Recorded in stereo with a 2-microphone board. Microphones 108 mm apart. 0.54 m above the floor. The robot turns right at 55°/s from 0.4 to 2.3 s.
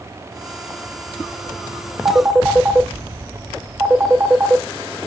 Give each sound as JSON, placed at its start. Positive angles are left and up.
{"t": 2.0, "sound": "a phone ringing", "side_deg": -30, "distance_m": 1.3}